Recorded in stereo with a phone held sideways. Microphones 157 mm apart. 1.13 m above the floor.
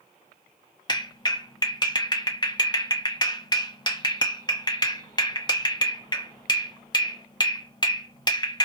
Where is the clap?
30° left (ahead or behind), 0.9 m.